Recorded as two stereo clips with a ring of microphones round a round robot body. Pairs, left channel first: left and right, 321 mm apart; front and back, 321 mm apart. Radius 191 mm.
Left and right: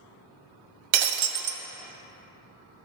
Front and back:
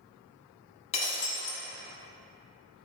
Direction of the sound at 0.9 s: 75° right.